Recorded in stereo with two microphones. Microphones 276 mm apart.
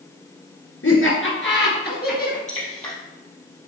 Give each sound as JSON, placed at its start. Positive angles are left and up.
{"t": 0.8, "sound": "laughter", "side_deg": 50, "distance_m": 2.5}
{"t": 2.5, "sound": "dripping", "side_deg": 25, "distance_m": 3.5}